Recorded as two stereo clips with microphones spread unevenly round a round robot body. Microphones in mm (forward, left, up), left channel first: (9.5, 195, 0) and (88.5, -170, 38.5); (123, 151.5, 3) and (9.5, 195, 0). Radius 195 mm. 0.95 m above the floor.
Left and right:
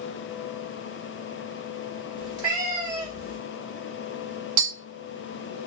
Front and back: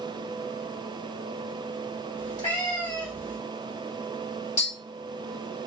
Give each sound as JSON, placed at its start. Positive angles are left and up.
{"t": 2.2, "sound": "a cat meowing", "azimuth_deg": -65, "distance_m": 1.4}
{"t": 4.6, "sound": "tapping", "azimuth_deg": -35, "distance_m": 0.6}